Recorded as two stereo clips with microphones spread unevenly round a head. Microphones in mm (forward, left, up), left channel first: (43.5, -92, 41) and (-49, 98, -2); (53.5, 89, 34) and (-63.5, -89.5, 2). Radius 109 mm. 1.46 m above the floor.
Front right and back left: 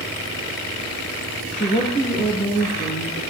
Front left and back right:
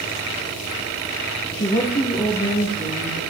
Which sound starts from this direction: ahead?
A woman speaking, at 1.5 s.